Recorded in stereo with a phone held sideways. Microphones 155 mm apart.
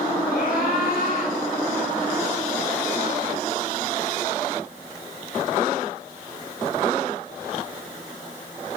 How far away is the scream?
About 6.5 m.